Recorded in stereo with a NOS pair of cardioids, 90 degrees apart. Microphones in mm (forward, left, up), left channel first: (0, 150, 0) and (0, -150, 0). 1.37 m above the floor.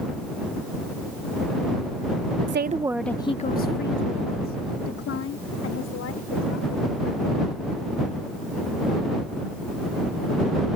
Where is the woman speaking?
45° right; by 7.6 s 65° left.